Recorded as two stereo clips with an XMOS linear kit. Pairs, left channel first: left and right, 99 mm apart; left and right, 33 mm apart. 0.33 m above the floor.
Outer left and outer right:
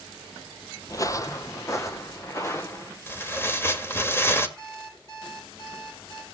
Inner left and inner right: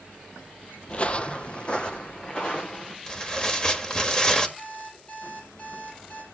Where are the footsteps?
40° left (ahead or behind), 0.5 m; by 3.0 s 30° left (ahead or behind), 2.5 m.